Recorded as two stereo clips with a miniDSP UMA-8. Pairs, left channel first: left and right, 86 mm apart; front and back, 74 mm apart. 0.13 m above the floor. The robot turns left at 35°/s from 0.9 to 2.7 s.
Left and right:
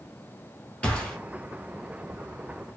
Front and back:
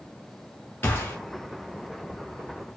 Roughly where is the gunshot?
Ahead left.